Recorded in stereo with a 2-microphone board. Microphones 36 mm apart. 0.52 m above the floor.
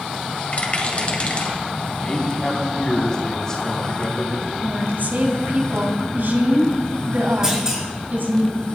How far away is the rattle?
About 2.5 m.